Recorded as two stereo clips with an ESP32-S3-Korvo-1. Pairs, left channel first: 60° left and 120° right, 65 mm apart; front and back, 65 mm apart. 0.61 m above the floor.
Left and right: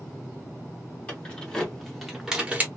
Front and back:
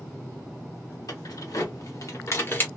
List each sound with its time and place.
1.1 s keys jangling: 10° right, 2 m; by 2.7 s 60° right, 1.2 m